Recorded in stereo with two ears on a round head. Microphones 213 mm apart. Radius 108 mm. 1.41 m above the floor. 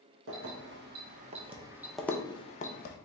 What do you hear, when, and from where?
0.3 s keys jangling: 55° right (ahead or behind), 1.1 m; by 3.0 s 45° left (ahead or behind), 0.8 m